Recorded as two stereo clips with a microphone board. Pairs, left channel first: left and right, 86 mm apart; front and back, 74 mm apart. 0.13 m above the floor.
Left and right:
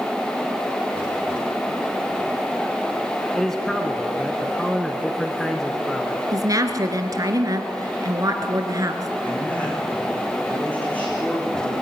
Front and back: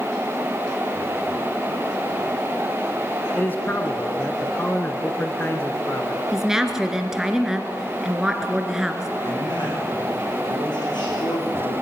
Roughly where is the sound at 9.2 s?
Ahead.